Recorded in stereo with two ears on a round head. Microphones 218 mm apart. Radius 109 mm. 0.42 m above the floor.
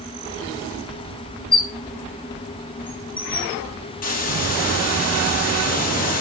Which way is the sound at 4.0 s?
40° left (ahead or behind).